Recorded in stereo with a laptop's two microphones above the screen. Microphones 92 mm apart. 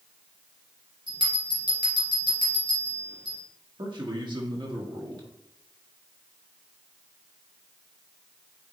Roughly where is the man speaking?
Right.